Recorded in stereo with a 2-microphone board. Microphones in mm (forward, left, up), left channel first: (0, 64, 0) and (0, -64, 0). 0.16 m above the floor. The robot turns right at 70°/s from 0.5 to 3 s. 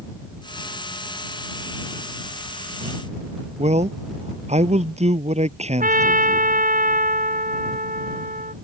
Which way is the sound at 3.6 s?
55° right (ahead or behind).